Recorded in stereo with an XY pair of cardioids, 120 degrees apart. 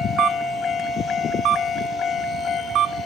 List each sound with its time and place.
0.2 s a camera shutter: 65° right, 1.9 m